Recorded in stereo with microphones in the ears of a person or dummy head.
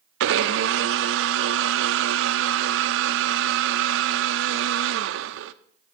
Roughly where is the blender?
Right.